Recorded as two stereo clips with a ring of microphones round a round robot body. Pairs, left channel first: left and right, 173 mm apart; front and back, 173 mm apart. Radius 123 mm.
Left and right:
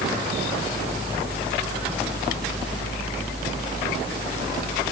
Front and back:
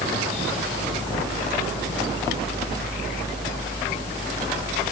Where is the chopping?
No chopping in this recording.